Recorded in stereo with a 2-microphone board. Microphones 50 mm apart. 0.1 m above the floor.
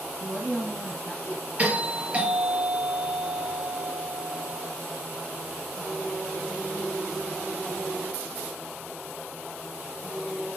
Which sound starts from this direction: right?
A doorbell, at 1.6 s.